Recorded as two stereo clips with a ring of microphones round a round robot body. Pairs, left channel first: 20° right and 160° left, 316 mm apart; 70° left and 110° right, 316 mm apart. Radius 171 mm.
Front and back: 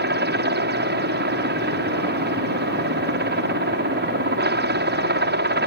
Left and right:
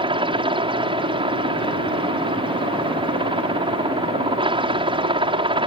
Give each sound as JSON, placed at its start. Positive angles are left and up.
{"t": 0.0, "sound": "a helicopter", "azimuth_deg": -175}